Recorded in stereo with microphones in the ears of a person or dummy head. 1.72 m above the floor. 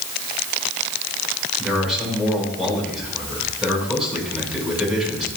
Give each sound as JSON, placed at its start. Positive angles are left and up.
{"t": 1.6, "sound": "a man speaking", "side_deg": -5, "distance_m": 5.5}